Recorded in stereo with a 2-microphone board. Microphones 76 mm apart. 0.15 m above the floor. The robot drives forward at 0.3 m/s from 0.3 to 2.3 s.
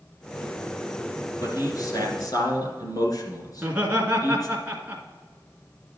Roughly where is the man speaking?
Left.